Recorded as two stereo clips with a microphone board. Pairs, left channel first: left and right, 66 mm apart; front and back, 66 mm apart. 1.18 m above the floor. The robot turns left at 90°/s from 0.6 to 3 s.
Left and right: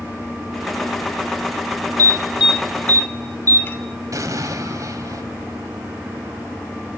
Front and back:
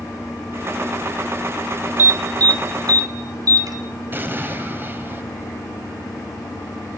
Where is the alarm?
120° right, 2.5 m; by 3.8 s 150° left, 2.5 m.